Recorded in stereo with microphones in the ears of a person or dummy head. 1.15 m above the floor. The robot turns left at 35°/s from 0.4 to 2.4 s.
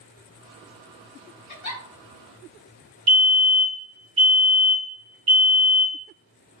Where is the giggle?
55° left (ahead or behind), 1.4 m; by 1.8 s 65° left (ahead or behind), 1.4 m.